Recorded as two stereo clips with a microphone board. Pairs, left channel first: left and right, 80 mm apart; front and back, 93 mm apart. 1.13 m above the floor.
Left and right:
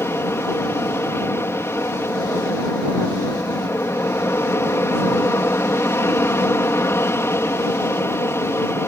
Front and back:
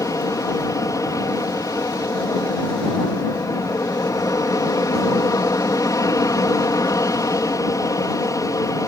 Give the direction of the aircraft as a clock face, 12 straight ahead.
11 o'clock.